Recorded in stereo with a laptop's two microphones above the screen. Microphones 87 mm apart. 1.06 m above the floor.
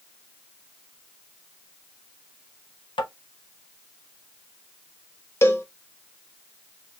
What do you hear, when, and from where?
3.0 s tapping: 65° left (ahead or behind), 0.7 m
5.4 s a cowbell: 30° left (ahead or behind), 0.7 m